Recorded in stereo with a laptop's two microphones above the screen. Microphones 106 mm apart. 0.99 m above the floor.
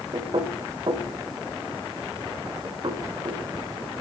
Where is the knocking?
45° right (ahead or behind), 3.5 m.